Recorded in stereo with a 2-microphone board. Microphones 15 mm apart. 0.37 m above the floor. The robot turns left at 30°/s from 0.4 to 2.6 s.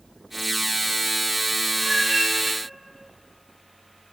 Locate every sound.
1.8 s a cat meowing: 60° right (ahead or behind), 1.5 m; by 2.4 s 40° right (ahead or behind), 1.5 m